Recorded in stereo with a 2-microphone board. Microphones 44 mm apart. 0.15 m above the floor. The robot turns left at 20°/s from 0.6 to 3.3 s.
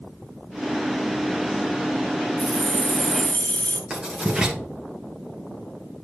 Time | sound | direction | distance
2.4 | keys jangling | 40° left (ahead or behind) | 1.2 m
3.9 | writing | 20° right (ahead or behind) | 3 m